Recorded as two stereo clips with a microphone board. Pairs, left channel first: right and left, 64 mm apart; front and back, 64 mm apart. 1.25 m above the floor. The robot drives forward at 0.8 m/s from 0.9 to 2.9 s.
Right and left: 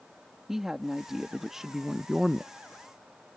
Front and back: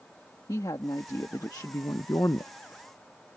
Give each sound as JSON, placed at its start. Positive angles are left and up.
{"t": 0.5, "sound": "a woman speaking", "azimuth_deg": 5}